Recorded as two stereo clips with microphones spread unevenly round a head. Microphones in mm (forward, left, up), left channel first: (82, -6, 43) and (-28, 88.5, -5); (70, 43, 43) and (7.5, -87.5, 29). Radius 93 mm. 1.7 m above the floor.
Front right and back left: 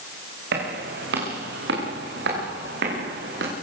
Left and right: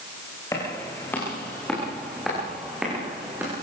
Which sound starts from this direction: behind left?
Footsteps, at 0.5 s.